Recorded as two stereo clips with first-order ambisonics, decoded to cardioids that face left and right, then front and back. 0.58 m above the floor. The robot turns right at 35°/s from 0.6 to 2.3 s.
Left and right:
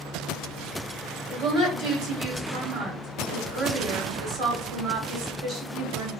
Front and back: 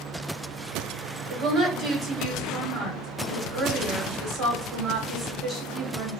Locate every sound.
1.3 s a woman speaking: 135° right, 2 m; by 6.1 s 100° right, 2 m